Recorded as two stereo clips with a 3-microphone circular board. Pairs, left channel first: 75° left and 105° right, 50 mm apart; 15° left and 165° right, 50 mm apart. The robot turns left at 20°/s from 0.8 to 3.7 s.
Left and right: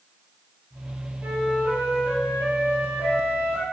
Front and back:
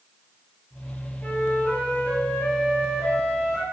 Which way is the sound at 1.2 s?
35° right.